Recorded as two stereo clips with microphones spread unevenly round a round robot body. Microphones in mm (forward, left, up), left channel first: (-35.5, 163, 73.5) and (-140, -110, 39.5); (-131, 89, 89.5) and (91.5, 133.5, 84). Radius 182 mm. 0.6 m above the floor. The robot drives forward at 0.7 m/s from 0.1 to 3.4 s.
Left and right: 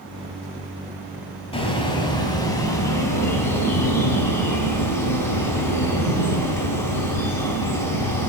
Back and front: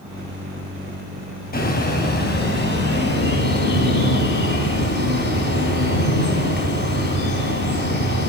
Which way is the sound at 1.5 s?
140° left.